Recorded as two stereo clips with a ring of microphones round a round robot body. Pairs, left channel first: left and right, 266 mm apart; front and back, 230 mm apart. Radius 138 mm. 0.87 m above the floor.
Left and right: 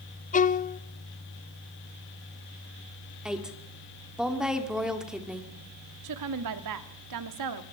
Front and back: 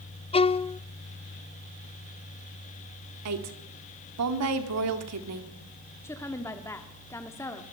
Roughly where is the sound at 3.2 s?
Behind.